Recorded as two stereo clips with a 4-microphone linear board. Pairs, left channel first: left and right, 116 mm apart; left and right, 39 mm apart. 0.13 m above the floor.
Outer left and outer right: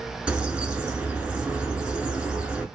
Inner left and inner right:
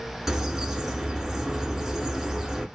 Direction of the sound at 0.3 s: 10° right (ahead or behind).